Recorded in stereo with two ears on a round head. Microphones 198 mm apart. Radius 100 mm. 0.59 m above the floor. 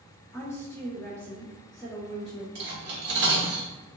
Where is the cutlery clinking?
50° right (ahead or behind), 0.9 m.